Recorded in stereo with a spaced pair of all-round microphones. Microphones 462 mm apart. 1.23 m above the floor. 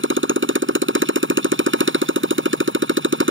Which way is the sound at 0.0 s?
25° right (ahead or behind).